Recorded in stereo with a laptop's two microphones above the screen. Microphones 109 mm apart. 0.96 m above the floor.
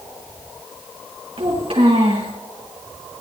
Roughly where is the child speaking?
Right.